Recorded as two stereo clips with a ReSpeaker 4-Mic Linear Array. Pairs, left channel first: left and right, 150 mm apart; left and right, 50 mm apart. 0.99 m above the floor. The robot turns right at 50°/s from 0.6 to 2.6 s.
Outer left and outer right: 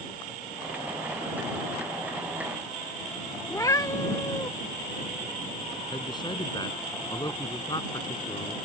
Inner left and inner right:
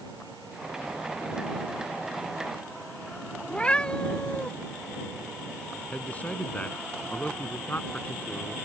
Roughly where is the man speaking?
Left.